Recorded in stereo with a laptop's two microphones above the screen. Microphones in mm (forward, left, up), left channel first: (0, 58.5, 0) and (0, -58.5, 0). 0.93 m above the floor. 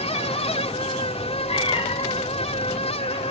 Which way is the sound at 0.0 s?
65° left (ahead or behind).